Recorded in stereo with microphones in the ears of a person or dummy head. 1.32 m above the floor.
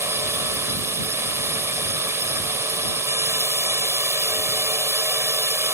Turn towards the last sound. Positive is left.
turn(degrees=-15)  # may be behind; listen again after turning